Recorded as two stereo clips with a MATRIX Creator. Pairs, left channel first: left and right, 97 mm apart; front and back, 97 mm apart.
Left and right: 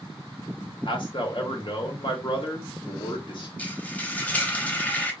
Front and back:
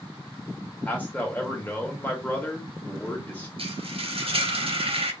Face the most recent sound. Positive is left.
turn(degrees=165)